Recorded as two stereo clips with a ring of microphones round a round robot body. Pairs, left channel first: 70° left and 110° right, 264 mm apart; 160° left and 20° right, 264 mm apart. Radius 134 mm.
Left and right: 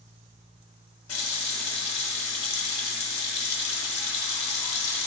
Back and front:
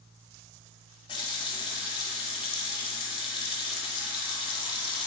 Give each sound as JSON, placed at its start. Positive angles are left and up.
{"t": 1.1, "sound": "a running tap", "azimuth_deg": 85, "distance_m": 1.0}